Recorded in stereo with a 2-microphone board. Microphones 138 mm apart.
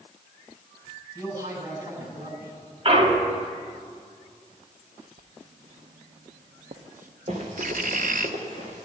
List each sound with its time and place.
1.1 s a man speaking: 25° right (ahead or behind), 7.5 m
2.9 s a clunk: 45° right (ahead or behind), 1.3 m
5.2 s writing: 75° right (ahead or behind), 0.7 m
7.3 s running footsteps: 55° right (ahead or behind), 3.5 m; by 8.8 s 65° right (ahead or behind), 4 m